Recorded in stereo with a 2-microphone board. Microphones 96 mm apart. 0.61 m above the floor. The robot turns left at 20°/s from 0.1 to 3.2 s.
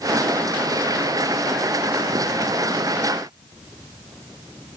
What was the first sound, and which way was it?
Only background noise.